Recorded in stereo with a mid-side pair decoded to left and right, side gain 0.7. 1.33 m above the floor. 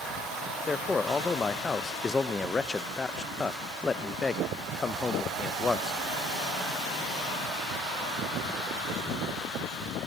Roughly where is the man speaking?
Ahead.